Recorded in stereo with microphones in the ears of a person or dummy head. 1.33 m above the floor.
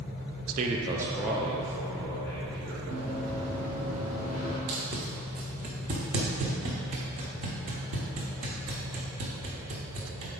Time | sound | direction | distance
0.5 | a man speaking | 45° right (ahead or behind) | 0.5 m
2.9 | running footsteps | 40° right (ahead or behind) | 1.8 m
4.7 | tape being pulled | 40° right (ahead or behind) | 1.1 m